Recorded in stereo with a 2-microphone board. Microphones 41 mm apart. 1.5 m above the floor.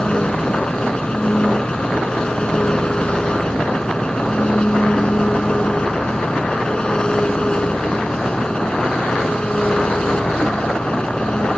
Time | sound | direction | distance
0.0 | an engine running | 25° left (ahead or behind) | ?